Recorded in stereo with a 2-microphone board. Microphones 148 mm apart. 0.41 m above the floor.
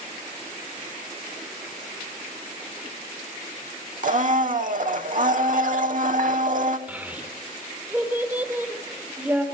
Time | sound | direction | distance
4.0 | a blender | 60° right (ahead or behind) | 0.5 m
6.9 | a child speaking | 10° right (ahead or behind) | 0.9 m